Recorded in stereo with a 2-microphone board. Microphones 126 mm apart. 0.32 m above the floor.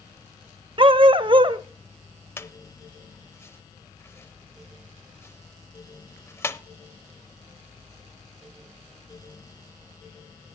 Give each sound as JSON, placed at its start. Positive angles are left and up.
{"t": 0.8, "sound": "a dog barking", "side_deg": -40, "distance_m": 0.5}
{"t": 2.4, "sound": "a squeak", "side_deg": 20, "distance_m": 0.5}